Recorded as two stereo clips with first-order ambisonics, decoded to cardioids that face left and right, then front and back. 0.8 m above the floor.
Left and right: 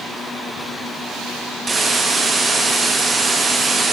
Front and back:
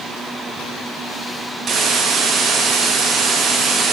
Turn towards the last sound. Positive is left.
turn(degrees=-150)